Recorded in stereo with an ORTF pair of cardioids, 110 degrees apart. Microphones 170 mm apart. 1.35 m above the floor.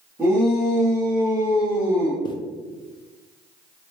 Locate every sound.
0.2 s a shout: 10° right, 1.7 m; by 2.1 s 60° left, 0.8 m
2.2 s a zipper: 25° left, 0.6 m